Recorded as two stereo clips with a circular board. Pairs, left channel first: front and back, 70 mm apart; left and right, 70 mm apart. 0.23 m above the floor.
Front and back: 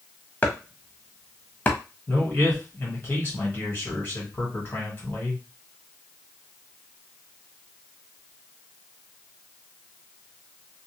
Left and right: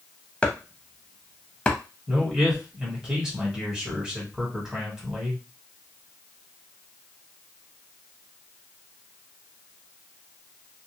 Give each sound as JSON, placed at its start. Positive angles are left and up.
{"t": 0.4, "sound": "chopping", "azimuth_deg": 35, "distance_m": 0.6}
{"t": 2.1, "sound": "a man speaking", "azimuth_deg": -20, "distance_m": 1.5}